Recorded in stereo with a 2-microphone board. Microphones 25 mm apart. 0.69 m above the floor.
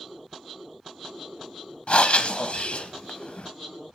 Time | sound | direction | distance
1.9 | breathing | 55° left (ahead or behind) | 0.8 m